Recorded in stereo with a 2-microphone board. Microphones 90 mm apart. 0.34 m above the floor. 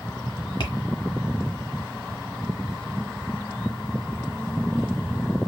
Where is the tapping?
60° left (ahead or behind), 0.9 m.